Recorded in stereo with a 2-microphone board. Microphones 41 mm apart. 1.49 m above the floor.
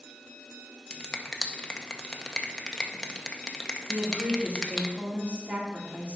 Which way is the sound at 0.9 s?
20° left (ahead or behind).